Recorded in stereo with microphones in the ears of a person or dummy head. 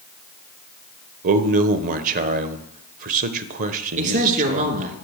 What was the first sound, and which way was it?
A man speaking, 50° right (ahead or behind).